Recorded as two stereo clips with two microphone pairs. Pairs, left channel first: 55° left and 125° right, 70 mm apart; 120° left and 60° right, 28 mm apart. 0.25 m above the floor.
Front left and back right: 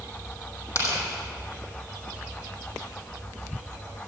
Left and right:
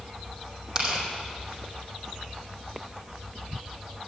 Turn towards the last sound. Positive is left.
turn(degrees=5)